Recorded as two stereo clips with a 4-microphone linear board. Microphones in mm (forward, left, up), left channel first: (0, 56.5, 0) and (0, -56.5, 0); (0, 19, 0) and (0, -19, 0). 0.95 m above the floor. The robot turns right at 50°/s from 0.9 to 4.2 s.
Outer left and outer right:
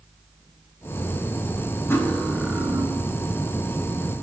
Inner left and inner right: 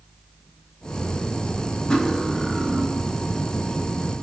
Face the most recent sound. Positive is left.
turn(degrees=-85)